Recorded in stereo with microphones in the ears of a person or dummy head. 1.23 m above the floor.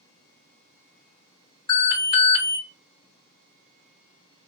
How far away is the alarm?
About 1.7 m.